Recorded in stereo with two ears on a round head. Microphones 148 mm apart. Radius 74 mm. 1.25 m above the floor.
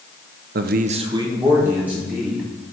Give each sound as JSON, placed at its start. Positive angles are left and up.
{"t": 0.6, "sound": "a man speaking", "side_deg": -60, "distance_m": 0.6}